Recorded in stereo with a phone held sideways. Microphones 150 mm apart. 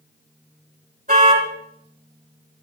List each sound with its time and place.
1.1 s a car horn: 65° right (ahead or behind), 4.5 m